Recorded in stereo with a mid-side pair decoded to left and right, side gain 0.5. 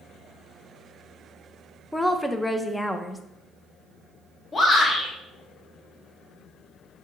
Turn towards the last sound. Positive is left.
turn(degrees=35)